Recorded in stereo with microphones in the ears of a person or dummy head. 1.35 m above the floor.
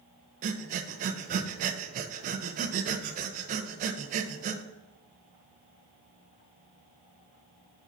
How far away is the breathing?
About 0.5 m.